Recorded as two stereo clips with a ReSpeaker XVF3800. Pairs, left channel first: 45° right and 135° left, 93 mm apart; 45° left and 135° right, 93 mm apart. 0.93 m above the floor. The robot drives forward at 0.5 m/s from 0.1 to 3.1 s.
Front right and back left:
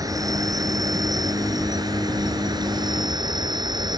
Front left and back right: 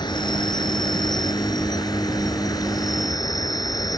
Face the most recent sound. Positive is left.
turn(degrees=95)